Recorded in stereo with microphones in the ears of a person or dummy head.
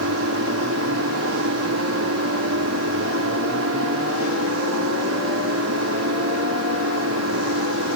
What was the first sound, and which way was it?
An engine running, 80° right.